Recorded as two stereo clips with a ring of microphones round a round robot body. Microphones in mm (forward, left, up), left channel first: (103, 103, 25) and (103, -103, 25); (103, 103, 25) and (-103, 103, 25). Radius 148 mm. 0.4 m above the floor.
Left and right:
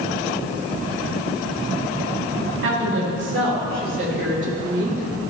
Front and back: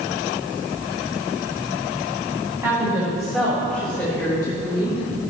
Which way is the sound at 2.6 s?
105° right.